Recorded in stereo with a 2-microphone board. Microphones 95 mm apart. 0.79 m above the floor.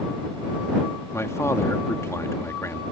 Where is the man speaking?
30° left (ahead or behind).